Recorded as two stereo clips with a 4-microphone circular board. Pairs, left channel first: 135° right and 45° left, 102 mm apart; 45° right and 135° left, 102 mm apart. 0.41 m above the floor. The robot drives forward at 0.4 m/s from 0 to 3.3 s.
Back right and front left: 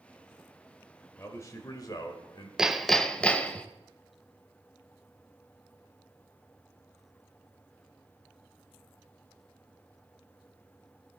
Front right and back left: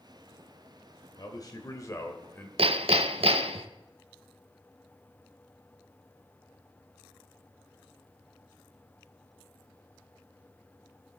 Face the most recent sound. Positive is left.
turn(degrees=145)